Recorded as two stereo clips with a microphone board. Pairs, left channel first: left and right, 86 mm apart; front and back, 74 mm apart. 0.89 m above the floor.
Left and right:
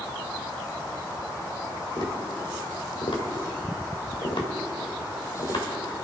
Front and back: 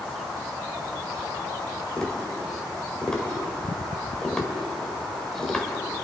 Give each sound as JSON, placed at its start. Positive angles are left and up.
{"t": 2.0, "sound": "tapping", "azimuth_deg": 80, "distance_m": 1.9}